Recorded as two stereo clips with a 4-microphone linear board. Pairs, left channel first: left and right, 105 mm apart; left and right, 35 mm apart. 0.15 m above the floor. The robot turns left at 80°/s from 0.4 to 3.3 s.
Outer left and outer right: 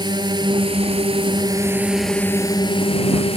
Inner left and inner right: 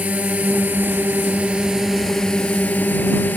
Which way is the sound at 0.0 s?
50° right.